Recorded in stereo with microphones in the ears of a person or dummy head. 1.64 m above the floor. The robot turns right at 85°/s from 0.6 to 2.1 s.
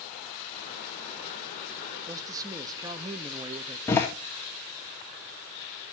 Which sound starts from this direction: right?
A man speaking, at 2.1 s.